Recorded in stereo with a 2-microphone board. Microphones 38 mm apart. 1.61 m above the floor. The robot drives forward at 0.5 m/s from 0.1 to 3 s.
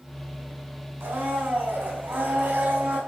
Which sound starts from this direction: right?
A blender, at 1.0 s.